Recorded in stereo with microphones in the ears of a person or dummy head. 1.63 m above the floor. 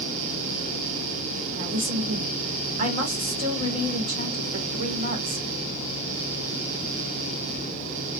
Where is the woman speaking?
45° right (ahead or behind), 2 m.